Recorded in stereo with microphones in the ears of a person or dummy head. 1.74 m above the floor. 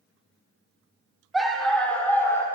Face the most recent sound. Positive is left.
turn(degrees=15)  # may be behind; listen again after turning